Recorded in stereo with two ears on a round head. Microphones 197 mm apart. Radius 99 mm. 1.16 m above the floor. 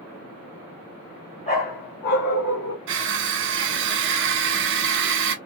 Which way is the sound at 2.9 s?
55° right (ahead or behind).